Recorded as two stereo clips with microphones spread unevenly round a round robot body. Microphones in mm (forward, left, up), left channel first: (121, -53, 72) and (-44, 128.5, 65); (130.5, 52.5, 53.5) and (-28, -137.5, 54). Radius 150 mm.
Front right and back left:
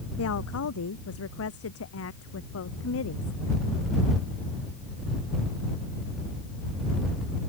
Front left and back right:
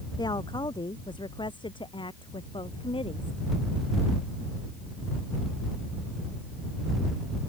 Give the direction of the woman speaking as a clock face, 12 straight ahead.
1 o'clock.